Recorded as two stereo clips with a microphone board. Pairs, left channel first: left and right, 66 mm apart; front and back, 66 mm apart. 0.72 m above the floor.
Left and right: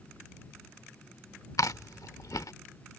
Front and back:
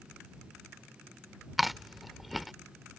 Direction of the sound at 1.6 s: 95° left.